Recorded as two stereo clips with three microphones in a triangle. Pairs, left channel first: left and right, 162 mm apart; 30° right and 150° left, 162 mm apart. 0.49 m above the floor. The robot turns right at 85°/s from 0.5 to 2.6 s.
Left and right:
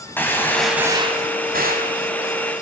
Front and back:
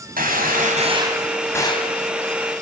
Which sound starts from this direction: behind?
A gunshot, at 0.2 s.